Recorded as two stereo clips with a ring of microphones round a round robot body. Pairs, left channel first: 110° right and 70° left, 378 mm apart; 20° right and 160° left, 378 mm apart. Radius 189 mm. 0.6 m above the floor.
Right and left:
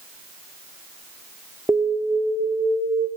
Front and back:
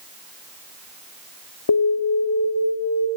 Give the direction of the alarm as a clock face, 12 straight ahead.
1 o'clock.